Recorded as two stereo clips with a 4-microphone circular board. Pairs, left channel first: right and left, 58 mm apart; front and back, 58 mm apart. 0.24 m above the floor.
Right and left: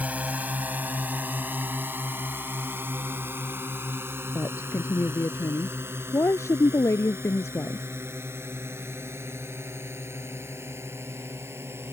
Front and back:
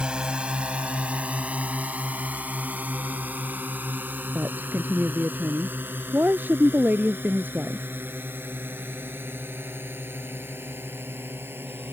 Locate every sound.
0.0 s a drone: 120° left; by 11.9 s 130° left
4.3 s a woman speaking: 125° right